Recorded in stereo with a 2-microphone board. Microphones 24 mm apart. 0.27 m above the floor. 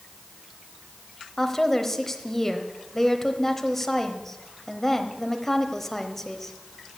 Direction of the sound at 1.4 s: 15° left (ahead or behind).